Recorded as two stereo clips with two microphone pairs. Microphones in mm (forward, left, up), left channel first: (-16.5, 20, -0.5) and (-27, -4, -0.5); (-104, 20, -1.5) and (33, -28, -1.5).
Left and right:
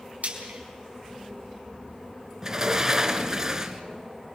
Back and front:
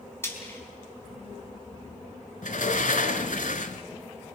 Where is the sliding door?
Straight behind, 1.4 m.